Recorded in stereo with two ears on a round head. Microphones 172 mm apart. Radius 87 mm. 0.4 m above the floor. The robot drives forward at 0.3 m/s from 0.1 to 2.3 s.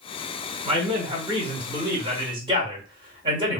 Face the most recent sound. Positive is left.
turn(degrees=-25)  # may be behind; listen again after turning